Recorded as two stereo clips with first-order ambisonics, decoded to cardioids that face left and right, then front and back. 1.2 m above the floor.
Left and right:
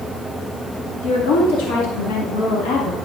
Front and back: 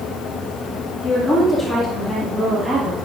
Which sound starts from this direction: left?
A woman speaking, at 1.0 s.